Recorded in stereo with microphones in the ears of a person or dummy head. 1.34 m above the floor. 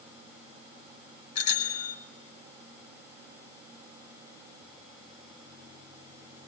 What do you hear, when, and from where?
1.4 s a bicycle bell: 85° left, 4.5 m